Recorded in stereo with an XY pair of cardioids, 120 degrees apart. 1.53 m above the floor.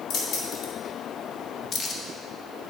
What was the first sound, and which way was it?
Keys jangling, 60° left.